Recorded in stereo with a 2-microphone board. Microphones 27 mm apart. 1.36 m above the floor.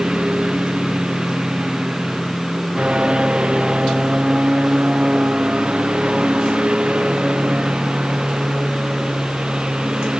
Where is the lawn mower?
35° right (ahead or behind).